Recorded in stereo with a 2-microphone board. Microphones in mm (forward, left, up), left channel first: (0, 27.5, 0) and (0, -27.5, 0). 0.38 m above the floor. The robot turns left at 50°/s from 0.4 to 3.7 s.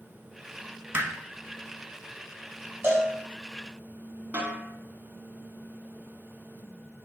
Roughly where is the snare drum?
Right.